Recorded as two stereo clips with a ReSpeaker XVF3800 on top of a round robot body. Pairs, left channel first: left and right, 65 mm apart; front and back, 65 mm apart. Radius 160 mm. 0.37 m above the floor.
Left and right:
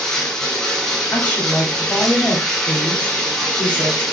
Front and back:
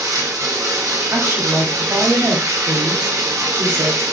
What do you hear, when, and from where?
0.0 s running water: 170° left, 1.0 m
1.1 s a woman speaking: 150° left, 1.2 m